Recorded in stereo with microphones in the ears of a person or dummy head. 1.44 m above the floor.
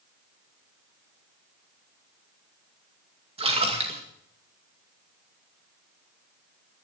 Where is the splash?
35° right (ahead or behind), 2 m.